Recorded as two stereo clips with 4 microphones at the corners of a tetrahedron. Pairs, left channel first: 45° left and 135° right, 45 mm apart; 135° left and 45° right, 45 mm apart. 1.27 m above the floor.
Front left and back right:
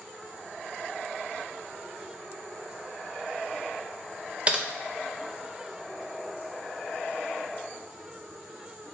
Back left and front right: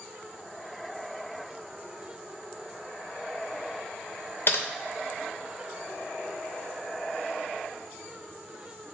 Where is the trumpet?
I don't hear a trumpet.